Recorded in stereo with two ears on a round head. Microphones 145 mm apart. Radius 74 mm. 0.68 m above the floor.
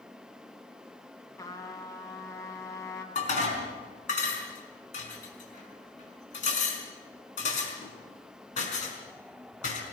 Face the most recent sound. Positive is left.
turn(degrees=50)  # may be behind; listen again after turning